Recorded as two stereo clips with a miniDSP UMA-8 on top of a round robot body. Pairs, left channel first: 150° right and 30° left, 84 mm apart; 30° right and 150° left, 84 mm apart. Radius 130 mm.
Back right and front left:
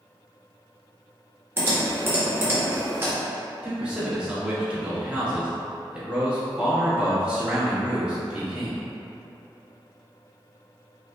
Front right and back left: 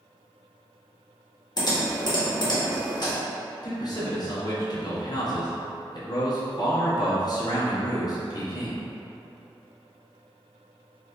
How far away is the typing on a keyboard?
About 1.7 m.